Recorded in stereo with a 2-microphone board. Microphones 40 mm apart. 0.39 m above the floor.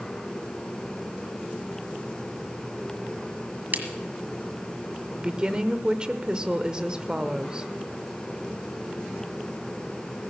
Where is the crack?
50° right (ahead or behind), 1.6 m.